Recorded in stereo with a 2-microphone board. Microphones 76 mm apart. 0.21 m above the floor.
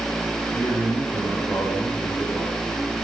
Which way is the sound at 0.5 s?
35° left (ahead or behind).